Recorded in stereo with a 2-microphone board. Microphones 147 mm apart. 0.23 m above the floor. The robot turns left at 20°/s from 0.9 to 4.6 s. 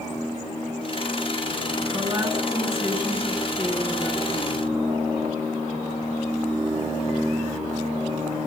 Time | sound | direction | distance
1.9 | a woman speaking | 145° right | 3 m